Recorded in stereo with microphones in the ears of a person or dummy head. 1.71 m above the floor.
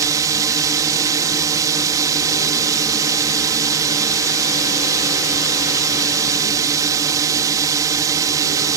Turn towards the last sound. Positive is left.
turn(degrees=-15)  # may be behind; listen again after turning